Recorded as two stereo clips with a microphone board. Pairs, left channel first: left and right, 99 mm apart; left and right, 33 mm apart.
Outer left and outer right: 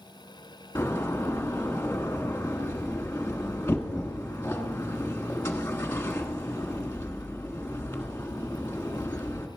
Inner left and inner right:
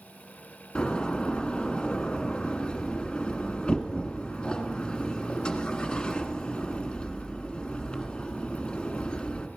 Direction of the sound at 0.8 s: 25° left (ahead or behind).